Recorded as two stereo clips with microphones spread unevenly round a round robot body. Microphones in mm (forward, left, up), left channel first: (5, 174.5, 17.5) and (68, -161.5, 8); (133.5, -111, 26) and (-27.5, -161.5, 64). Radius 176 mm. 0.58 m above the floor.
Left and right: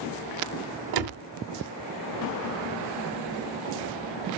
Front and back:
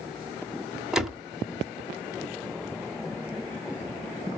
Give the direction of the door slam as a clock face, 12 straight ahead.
2 o'clock.